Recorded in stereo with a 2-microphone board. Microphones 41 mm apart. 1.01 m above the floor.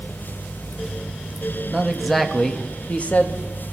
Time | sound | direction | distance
1.7 | a man speaking | 10° right (ahead or behind) | 1.6 m